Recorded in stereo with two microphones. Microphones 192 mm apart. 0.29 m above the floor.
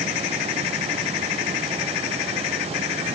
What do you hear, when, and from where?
Only background noise.